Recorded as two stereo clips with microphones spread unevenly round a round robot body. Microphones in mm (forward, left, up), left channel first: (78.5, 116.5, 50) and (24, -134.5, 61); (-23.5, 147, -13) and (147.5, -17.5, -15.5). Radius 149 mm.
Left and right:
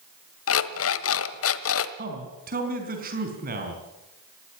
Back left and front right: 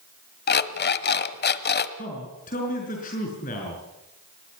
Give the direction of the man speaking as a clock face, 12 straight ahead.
5 o'clock.